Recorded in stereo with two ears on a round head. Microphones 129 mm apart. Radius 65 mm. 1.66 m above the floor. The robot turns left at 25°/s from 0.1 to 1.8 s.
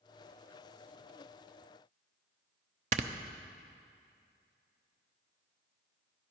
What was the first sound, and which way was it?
Snoring, 50° right (ahead or behind).